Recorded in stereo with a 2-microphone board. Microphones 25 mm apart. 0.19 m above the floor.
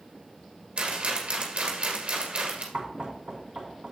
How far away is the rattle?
About 2.5 m.